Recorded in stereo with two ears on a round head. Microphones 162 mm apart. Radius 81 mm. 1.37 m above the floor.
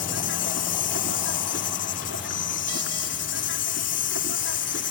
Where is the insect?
70° left (ahead or behind).